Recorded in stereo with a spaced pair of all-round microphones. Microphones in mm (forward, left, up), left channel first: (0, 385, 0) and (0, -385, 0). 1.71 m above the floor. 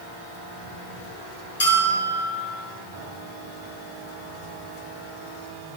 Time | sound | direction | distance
1.6 | a bell | 30° left (ahead or behind) | 1.7 m